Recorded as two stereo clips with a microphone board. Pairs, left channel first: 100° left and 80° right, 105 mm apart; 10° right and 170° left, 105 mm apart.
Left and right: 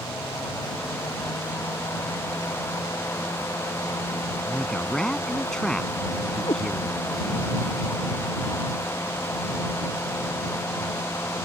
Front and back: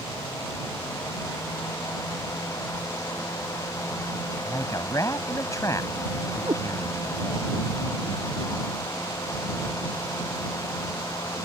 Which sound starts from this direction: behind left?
A cat meowing, at 6.5 s.